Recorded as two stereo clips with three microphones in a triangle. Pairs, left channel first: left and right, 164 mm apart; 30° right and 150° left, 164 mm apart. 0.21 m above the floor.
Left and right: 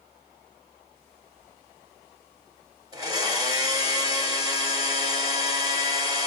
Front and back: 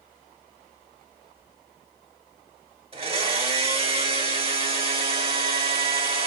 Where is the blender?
155° right, 0.7 m.